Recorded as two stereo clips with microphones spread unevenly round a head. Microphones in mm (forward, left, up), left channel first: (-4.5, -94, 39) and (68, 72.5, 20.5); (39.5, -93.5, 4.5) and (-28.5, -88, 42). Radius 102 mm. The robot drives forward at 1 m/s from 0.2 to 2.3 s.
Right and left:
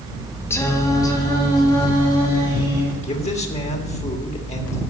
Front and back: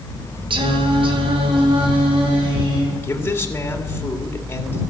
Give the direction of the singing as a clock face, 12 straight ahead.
6 o'clock.